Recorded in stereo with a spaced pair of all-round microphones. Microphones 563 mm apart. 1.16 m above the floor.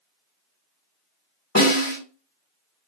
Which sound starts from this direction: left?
A snare drum, at 1.6 s.